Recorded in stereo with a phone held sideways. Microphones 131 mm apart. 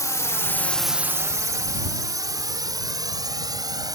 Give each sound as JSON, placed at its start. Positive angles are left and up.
{"t": 0.0, "sound": "a drone", "side_deg": 25}